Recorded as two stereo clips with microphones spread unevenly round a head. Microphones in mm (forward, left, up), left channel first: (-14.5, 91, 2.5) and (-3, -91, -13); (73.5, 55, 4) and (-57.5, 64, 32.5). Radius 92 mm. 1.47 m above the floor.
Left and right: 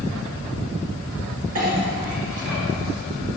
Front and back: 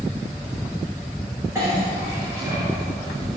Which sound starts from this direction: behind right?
A clink, at 1.6 s.